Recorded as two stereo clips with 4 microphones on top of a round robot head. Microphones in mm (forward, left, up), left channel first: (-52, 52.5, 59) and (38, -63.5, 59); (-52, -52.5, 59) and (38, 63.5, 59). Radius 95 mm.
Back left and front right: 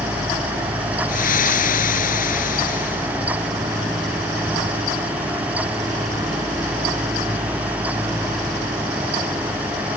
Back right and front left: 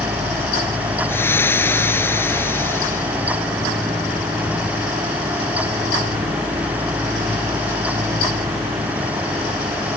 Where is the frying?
155° left.